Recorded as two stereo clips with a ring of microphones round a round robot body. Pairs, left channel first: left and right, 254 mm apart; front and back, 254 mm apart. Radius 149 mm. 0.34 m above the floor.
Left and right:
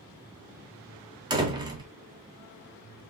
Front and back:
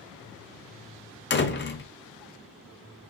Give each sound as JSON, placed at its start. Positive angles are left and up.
{"t": 1.3, "sound": "a door slam", "azimuth_deg": -25, "distance_m": 0.8}